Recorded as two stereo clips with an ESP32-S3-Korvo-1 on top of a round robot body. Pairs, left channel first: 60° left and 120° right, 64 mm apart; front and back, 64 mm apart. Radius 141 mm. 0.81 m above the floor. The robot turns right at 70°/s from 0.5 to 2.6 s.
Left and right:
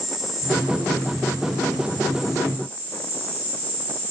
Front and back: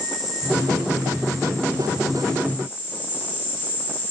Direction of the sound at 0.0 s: 155° left.